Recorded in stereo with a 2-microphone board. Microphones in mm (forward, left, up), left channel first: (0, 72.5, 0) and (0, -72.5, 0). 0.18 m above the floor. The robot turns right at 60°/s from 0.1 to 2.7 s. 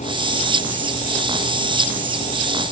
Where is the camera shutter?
No camera shutter in this recording.